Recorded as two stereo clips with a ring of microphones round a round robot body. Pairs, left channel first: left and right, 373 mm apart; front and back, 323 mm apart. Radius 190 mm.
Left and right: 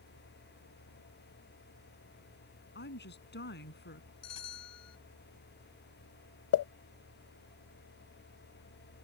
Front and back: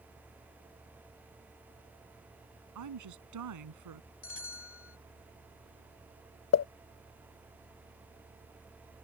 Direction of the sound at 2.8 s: 155° left.